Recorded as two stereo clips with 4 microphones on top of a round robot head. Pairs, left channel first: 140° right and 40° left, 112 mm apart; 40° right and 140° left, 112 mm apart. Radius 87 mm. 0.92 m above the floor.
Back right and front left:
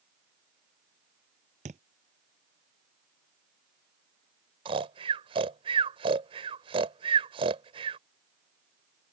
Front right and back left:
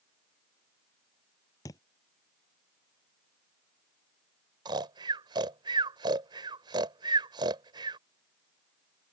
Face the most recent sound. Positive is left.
turn(degrees=85)